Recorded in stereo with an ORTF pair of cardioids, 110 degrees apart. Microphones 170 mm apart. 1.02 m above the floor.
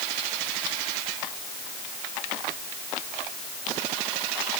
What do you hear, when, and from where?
Only background noise.